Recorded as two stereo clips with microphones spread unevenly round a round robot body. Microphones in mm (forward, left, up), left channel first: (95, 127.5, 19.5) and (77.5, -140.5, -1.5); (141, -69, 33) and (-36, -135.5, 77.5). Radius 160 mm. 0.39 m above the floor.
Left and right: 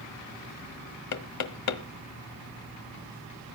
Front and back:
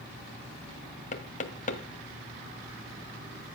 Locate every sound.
1.1 s knocking: 70° left, 1.4 m